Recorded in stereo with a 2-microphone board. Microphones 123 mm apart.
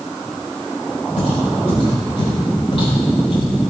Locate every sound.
1.2 s footsteps: 65° left (ahead or behind), 5 m; by 3.5 s 50° left (ahead or behind), 5.5 m